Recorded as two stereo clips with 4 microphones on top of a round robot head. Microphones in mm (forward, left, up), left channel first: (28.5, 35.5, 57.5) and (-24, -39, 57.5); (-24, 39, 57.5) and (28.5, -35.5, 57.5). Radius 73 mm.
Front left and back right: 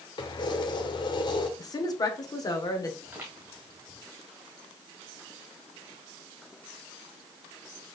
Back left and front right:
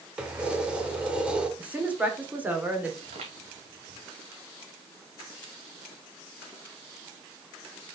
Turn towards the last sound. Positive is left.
turn(degrees=-65)